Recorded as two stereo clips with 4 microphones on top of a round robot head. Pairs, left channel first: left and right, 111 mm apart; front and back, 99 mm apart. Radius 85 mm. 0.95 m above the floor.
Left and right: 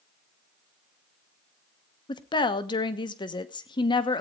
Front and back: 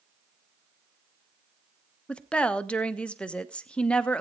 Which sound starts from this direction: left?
A woman speaking, at 2.1 s.